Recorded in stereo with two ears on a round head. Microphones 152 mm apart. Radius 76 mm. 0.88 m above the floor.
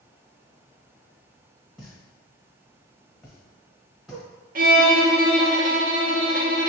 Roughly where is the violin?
Right.